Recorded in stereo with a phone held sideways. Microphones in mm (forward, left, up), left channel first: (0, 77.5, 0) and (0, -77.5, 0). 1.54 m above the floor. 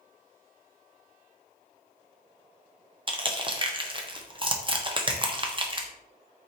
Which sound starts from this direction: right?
Crushing, at 3.1 s.